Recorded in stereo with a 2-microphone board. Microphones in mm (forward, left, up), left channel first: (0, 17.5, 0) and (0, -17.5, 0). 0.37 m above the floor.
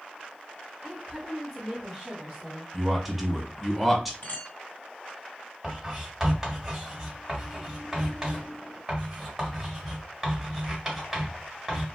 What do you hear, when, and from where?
0.8 s a woman speaking: 20° right (ahead or behind), 0.9 m; by 2.6 s 5° right (ahead or behind), 1.4 m
2.7 s a man speaking: 5° right (ahead or behind), 0.9 m
4.2 s a clink: 65° left (ahead or behind), 1.5 m
5.6 s writing: 5° right (ahead or behind), 1.7 m